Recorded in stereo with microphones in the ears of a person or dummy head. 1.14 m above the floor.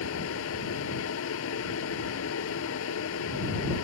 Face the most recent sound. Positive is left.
turn(degrees=85)